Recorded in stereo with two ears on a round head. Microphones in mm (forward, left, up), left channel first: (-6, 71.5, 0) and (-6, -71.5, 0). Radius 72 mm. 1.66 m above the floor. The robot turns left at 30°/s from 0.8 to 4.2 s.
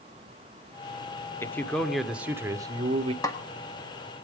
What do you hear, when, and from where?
1.4 s a man speaking: 15° left, 1.0 m; by 3.1 s 35° right, 1.0 m
3.2 s a snare drum: 20° left (ahead or behind), 1.6 m; by 3.4 s 15° left (ahead or behind), 1.6 m